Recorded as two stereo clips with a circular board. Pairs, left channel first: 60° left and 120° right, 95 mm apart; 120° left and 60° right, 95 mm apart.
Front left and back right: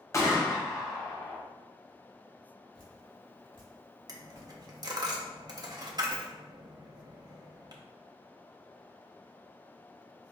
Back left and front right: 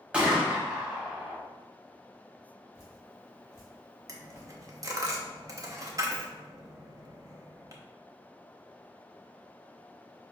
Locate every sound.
0.1 s a gunshot: 15° left, 0.7 m
2.7 s dripping: 65° left, 1.2 m
4.1 s a dropped coin: 100° right, 0.5 m